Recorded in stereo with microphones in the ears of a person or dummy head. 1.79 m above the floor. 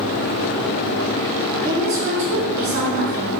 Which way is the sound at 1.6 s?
50° right (ahead or behind).